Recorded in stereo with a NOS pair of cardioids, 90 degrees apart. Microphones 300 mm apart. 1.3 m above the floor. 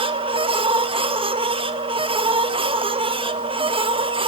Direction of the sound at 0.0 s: 15° right.